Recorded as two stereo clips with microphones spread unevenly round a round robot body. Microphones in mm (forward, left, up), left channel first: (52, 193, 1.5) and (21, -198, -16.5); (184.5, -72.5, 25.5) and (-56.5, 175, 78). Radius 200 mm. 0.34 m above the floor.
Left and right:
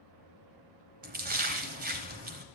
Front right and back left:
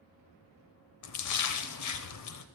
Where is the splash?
30° right, 0.9 m.